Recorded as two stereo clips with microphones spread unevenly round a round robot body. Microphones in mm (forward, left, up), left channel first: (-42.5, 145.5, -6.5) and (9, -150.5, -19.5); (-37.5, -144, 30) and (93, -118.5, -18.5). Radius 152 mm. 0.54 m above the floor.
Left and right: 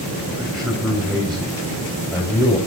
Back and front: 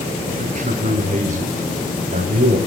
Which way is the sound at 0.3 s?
10° left.